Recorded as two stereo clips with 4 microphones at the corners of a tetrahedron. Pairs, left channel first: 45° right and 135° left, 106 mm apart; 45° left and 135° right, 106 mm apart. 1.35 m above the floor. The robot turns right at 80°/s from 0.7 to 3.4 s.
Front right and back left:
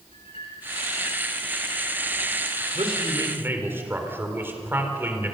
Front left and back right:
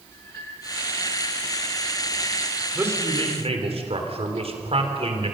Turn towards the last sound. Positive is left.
turn(degrees=-155)